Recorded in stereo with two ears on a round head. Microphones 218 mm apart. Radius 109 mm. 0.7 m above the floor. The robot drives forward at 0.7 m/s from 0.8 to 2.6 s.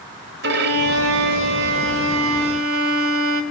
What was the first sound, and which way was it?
A violin, 50° right (ahead or behind).